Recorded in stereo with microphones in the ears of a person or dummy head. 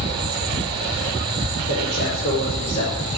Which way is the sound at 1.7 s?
55° left (ahead or behind).